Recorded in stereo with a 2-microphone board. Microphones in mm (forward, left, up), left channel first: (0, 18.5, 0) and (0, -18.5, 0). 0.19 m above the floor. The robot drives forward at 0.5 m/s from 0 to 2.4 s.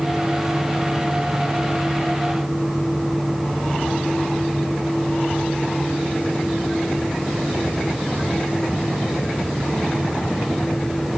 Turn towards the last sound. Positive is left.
No sound to turn to.